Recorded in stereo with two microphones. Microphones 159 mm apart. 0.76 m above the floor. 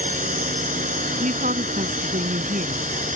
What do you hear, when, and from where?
0.0 s a drone: 55° right (ahead or behind)
1.2 s a woman speaking: 60° right (ahead or behind)